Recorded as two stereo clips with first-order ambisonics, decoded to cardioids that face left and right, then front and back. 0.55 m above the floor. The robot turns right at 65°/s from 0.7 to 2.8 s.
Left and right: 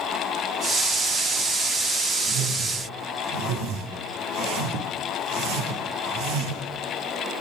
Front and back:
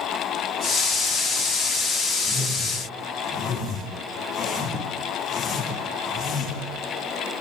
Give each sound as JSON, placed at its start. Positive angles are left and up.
{"t": 2.2, "sound": "a whoosh", "azimuth_deg": -115, "distance_m": 8.5}